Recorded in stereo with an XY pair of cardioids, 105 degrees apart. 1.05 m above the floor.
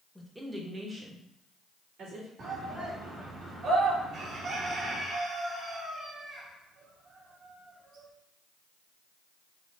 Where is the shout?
60° right, 2 m.